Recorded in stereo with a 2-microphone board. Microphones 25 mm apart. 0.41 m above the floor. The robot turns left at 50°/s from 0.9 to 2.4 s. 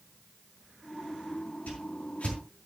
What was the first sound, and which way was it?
A whoosh, 75° left (ahead or behind).